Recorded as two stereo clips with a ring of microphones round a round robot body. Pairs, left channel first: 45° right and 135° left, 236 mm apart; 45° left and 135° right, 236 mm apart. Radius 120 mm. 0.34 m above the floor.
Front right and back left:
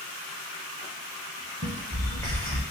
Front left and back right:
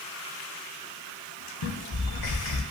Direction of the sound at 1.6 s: 35° left.